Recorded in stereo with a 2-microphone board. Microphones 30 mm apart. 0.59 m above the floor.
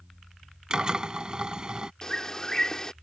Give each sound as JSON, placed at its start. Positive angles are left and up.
{"t": 0.7, "sound": "a drill", "side_deg": -30}
{"t": 2.0, "sound": "a bird", "side_deg": 20}